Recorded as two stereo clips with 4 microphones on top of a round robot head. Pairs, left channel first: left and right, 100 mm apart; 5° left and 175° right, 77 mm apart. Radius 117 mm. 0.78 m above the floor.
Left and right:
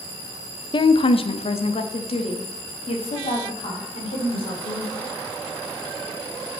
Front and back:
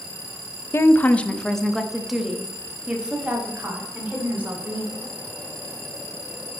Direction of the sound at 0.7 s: 60° left.